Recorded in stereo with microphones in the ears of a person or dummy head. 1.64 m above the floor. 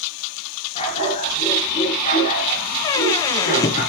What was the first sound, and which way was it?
A dog barking, 35° left (ahead or behind).